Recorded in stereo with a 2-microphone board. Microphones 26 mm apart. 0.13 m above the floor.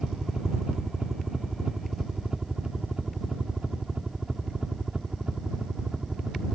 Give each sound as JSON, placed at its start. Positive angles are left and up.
{"t": 0.0, "sound": "a helicopter", "side_deg": -25}